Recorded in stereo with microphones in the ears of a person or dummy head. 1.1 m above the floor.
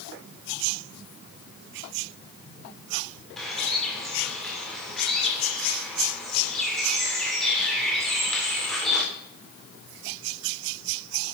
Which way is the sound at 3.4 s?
Centre (ahead or behind).